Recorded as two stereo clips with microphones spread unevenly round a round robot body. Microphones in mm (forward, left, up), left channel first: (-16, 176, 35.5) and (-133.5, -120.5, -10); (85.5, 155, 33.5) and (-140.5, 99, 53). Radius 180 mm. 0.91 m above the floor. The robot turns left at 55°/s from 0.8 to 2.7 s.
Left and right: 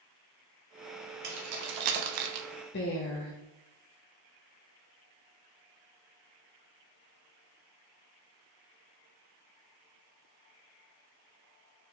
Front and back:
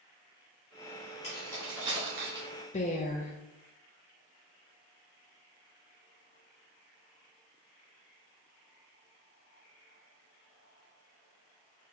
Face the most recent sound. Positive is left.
turn(degrees=25)